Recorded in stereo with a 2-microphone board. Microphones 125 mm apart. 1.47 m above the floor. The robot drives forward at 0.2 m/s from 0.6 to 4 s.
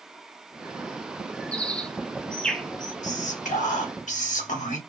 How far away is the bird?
About 0.5 m.